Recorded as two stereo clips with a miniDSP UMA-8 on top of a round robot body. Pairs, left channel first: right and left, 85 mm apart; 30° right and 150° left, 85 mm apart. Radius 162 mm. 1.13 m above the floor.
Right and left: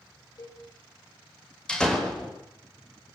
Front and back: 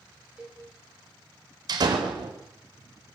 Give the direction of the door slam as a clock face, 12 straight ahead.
6 o'clock.